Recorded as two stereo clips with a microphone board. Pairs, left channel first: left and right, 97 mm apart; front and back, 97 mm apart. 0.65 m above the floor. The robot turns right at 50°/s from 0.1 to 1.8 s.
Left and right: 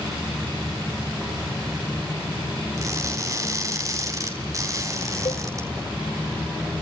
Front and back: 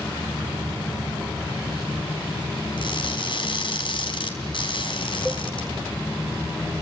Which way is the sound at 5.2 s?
100° left.